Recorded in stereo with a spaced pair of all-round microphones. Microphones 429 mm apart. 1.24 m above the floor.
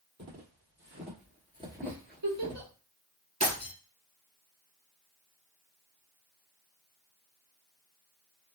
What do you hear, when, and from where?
0.2 s footsteps: 40° right (ahead or behind), 1.6 m; by 2.6 s 15° left (ahead or behind), 1.2 m
1.8 s a giggle: 80° right, 1.6 m
3.4 s breaking glass: 60° right (ahead or behind), 2 m